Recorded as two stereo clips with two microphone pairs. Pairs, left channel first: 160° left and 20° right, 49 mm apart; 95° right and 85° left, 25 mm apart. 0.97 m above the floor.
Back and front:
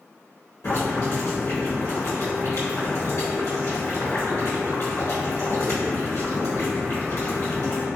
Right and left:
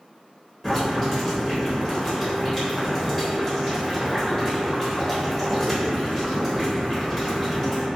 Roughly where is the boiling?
Behind.